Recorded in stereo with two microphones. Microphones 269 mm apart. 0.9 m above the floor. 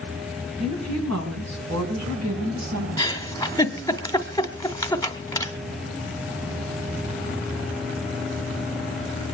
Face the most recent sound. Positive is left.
turn(degrees=10)  # may be behind; listen again after turning